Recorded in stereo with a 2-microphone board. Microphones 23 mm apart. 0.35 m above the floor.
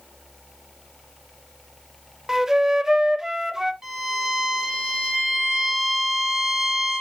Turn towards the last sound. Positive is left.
turn(degrees=-20)  # may be behind; listen again after turning